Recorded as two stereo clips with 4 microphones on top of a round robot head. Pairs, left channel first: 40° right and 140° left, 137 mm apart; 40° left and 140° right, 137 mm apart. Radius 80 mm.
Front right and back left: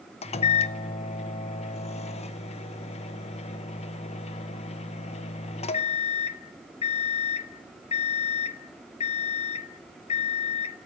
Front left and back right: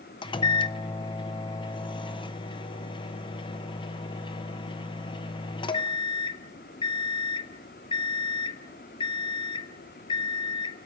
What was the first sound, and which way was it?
A microwave, 10° right.